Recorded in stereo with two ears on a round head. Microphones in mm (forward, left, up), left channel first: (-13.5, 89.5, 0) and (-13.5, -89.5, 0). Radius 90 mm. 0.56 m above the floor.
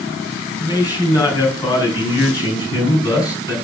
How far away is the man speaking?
About 4.5 m.